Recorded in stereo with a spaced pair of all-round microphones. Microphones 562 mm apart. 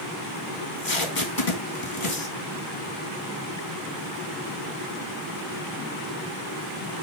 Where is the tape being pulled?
60° left (ahead or behind), 2 m.